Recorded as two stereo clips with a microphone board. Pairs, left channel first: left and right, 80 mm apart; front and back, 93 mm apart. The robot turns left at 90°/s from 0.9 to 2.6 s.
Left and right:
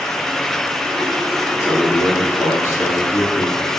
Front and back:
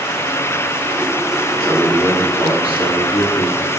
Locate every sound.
1.6 s a man speaking: 125° left, 3.5 m; by 3.6 s 35° left, 3.5 m